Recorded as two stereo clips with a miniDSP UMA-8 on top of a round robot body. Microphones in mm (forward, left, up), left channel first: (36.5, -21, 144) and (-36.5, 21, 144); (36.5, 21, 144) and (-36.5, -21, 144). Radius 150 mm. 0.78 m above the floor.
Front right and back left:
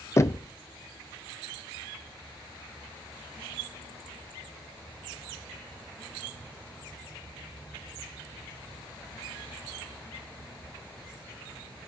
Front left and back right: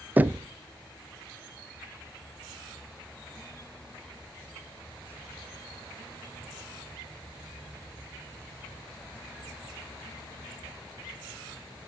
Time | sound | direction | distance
0.2 | knocking | 85° right | 0.5 m